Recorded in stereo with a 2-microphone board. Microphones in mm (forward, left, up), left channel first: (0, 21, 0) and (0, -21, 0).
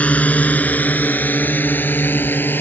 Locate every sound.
0.0 s a drone: 30° left (ahead or behind); by 2.6 s 50° left (ahead or behind)